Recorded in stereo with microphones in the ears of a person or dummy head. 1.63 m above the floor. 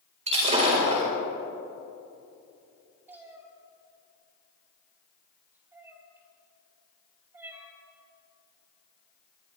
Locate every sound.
0.3 s breaking glass: 35° right (ahead or behind), 4 m
3.1 s a cat meowing: 15° right (ahead or behind), 1.6 m